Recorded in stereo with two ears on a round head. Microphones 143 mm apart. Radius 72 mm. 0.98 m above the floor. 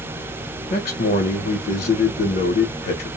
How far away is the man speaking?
About 0.7 m.